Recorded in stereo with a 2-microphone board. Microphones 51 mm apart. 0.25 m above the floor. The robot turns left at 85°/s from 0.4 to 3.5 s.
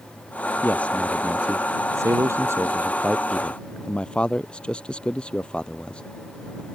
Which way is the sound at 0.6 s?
45° left (ahead or behind).